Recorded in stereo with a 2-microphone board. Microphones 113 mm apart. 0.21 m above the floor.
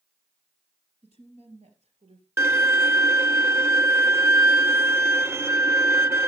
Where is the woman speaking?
70° right (ahead or behind), 4 m; by 2.3 s 75° right (ahead or behind), 4 m.